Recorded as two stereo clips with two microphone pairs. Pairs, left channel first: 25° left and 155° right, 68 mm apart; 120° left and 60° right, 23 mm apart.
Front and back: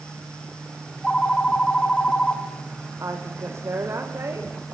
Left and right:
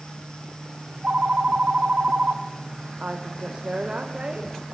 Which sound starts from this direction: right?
A woman speaking, at 3.0 s.